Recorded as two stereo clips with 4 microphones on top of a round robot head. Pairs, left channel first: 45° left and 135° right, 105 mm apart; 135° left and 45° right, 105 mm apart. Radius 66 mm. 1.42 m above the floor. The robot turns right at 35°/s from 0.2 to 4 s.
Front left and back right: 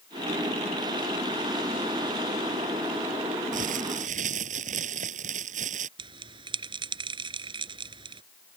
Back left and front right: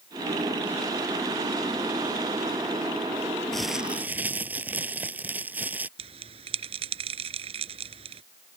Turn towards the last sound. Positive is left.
turn(degrees=-85)